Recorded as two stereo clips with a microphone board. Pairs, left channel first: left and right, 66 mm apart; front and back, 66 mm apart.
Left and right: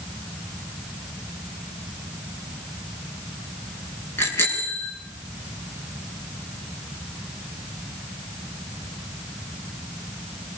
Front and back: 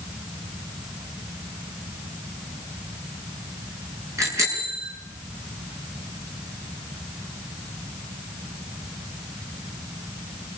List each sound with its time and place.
4.2 s a bicycle bell: 140° left, 8 m